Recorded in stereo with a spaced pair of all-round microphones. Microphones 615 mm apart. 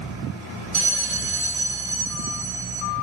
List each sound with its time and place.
0.7 s a bell: 55° right (ahead or behind), 5.5 m